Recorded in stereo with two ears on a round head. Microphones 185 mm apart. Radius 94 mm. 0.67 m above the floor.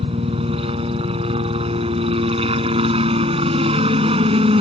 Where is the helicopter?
25° right (ahead or behind).